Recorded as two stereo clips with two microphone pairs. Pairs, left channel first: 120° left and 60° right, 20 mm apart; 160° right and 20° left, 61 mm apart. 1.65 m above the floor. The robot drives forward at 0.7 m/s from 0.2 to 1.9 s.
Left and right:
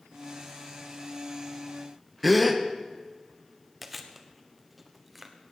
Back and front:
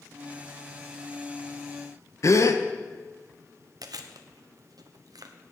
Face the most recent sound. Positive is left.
turn(degrees=25)